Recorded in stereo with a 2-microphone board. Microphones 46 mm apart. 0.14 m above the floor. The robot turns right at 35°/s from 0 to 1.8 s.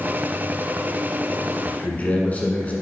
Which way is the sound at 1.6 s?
30° left (ahead or behind).